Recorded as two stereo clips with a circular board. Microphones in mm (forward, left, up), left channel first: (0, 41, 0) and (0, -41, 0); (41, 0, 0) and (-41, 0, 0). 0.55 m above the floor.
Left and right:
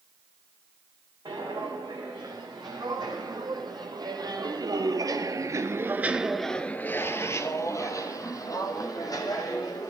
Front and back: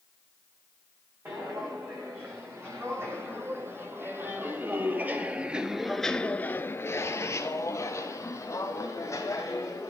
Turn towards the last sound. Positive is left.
turn(degrees=50)